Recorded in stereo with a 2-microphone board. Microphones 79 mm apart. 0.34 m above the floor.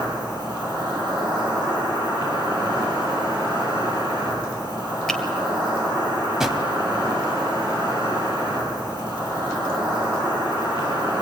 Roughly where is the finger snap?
Centre.